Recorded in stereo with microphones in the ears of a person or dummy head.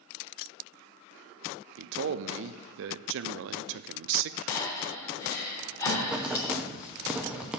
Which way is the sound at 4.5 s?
20° left (ahead or behind).